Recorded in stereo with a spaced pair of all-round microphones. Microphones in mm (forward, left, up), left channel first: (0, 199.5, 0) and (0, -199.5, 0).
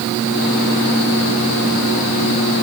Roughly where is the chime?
I don't hear a chime.